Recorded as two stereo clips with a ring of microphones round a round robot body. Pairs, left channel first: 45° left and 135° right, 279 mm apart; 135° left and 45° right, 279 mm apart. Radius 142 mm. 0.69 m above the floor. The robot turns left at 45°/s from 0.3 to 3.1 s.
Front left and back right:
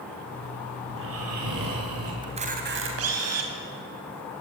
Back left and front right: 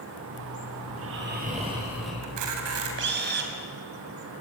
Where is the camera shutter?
60° right, 4 m; by 3.5 s 100° right, 4 m.